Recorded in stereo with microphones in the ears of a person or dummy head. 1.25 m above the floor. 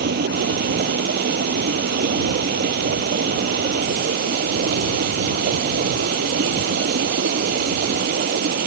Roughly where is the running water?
Right.